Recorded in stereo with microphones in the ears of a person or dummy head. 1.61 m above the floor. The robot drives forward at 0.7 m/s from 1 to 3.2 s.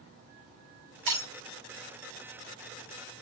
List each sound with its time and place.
1.1 s breaking glass: 80° right, 5 m